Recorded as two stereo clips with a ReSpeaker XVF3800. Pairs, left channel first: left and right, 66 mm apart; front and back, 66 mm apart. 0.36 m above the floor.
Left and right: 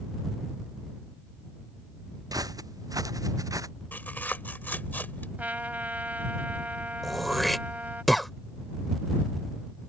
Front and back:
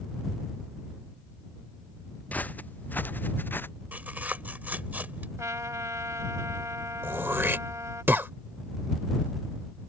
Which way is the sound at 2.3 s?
65° right.